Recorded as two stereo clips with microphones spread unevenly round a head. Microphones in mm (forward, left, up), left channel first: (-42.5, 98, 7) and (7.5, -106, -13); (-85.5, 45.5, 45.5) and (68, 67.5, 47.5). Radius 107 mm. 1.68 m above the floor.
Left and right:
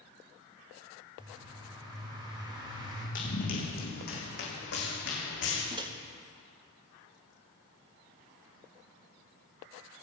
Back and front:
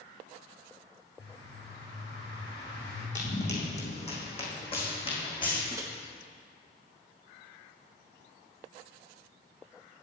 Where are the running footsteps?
150° left, 4.5 m; by 5.6 s 130° left, 5 m.